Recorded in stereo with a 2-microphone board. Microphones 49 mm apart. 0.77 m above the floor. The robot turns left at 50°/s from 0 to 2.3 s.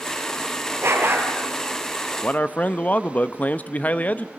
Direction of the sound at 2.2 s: 30° left (ahead or behind).